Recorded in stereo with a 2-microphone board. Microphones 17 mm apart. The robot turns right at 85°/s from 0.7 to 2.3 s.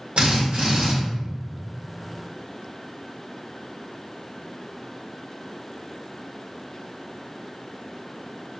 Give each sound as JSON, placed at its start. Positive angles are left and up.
{"t": 0.2, "sound": "a drill", "side_deg": -70, "distance_m": 1.4}